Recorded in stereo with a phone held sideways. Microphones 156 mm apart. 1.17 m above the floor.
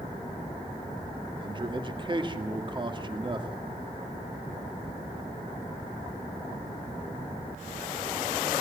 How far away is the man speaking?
About 2 m.